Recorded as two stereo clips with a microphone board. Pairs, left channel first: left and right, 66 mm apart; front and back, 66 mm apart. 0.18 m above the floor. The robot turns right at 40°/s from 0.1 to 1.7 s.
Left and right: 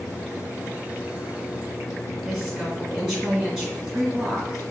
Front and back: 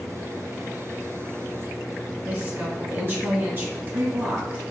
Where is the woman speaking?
170° right, 1.8 m.